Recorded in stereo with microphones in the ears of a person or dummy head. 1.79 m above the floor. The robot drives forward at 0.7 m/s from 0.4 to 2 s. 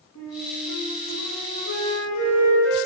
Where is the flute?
80° left, 3.5 m; by 2.8 s 65° left (ahead or behind), 3.5 m.